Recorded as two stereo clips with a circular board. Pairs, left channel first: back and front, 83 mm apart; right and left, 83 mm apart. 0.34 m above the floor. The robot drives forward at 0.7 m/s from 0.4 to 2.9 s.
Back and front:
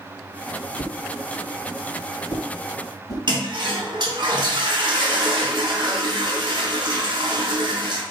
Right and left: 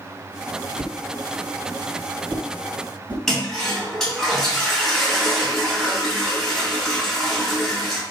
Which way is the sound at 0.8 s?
100° left.